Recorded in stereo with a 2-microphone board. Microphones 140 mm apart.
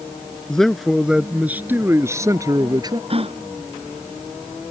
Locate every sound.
0.5 s a man speaking: 5° left (ahead or behind); by 3.0 s 30° right (ahead or behind)
3.1 s a gasp: 45° right (ahead or behind)